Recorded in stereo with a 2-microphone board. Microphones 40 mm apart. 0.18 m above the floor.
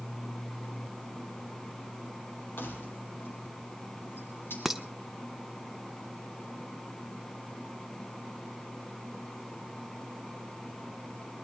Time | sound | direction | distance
2.6 | keys jangling | 65° left (ahead or behind) | 4 m
4.7 | dishes clattering | 10° right (ahead or behind) | 0.7 m